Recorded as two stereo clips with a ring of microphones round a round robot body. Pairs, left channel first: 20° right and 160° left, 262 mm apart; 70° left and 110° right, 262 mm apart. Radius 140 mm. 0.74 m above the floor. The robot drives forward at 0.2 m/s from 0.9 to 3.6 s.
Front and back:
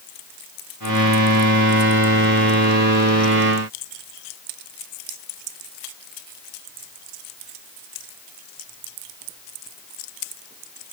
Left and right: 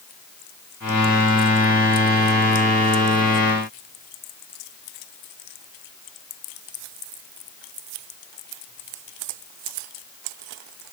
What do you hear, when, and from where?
Only background noise.